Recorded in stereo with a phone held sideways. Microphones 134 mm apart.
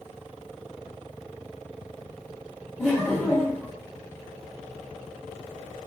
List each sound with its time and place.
2.8 s laughter: 5° left (ahead or behind), 1.1 m